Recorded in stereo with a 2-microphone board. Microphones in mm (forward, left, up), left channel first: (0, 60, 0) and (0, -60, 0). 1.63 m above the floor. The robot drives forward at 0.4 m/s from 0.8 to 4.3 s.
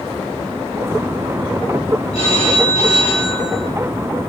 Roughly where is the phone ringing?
Left.